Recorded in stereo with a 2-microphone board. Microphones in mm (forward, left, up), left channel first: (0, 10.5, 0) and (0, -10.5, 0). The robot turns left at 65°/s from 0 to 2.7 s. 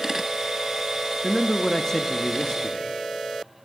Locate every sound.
1.2 s a man speaking: 170° left, 0.8 m; by 2.9 s 75° left, 0.8 m